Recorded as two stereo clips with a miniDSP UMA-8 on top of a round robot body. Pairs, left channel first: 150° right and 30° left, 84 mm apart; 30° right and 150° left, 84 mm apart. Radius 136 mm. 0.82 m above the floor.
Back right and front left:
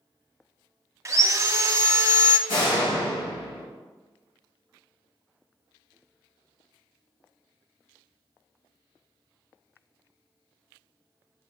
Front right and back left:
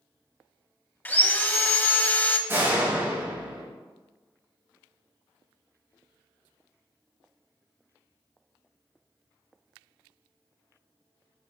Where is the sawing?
20° left, 1.1 m.